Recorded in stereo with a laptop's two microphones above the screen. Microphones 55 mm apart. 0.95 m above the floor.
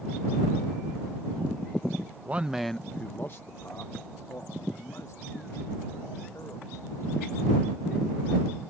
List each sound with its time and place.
2.2 s a man speaking: 30° right (ahead or behind); by 7.4 s 80° left